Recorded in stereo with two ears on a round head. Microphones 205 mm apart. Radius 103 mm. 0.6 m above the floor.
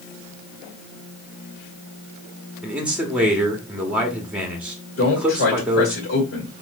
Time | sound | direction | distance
2.6 | a man speaking | 5° right (ahead or behind) | 1.0 m
5.0 | a man speaking | 45° left (ahead or behind) | 1.9 m